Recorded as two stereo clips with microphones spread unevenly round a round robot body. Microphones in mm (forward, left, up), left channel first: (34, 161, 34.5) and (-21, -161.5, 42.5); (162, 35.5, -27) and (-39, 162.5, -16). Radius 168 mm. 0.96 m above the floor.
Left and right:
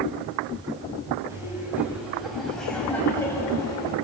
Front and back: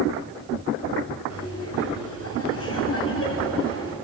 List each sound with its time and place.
1.3 s laughter: 15° right, 6 m; by 3.9 s 5° left, 5.5 m